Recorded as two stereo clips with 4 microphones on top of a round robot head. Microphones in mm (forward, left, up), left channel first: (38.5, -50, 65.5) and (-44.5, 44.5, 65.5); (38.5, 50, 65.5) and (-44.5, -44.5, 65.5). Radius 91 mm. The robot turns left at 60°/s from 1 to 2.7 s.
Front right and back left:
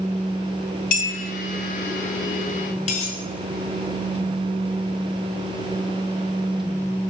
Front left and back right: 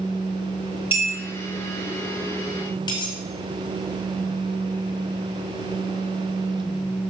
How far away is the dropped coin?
About 2.5 m.